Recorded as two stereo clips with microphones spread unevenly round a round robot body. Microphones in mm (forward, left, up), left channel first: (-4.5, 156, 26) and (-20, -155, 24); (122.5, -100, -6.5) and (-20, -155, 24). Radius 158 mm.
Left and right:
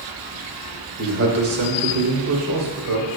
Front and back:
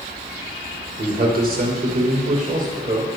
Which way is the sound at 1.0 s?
140° right.